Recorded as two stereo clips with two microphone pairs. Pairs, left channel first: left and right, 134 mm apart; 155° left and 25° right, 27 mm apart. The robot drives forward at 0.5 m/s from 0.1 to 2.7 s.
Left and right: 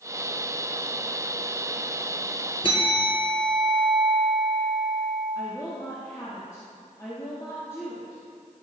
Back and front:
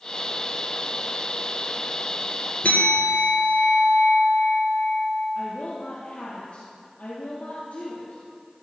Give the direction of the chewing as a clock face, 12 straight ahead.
No chewing in this recording.